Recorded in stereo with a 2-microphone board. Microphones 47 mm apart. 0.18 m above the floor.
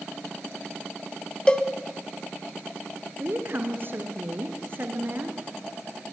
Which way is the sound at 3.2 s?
45° right (ahead or behind).